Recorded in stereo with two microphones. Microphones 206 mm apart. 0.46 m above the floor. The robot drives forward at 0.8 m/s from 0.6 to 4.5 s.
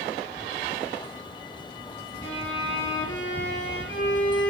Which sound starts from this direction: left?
A violin, at 2.2 s.